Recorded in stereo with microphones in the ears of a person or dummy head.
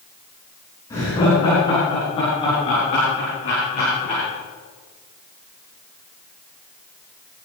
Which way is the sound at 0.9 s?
15° left (ahead or behind).